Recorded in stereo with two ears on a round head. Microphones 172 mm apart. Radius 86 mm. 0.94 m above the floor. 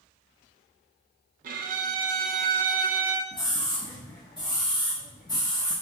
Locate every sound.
1.4 s a violin: 45° right (ahead or behind), 0.5 m
3.3 s a scream: 20° left (ahead or behind), 0.8 m